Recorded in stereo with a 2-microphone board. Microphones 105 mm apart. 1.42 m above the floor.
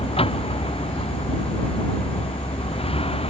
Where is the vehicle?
60° left (ahead or behind); by 3.3 s 65° left (ahead or behind).